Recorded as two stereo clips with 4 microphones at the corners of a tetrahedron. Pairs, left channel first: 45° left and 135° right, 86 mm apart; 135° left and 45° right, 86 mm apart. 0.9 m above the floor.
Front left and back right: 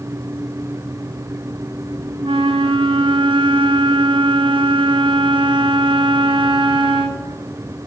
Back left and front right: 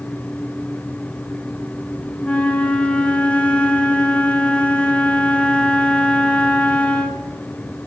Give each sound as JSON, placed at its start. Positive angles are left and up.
{"t": 2.2, "sound": "a flute", "azimuth_deg": -150, "distance_m": 0.6}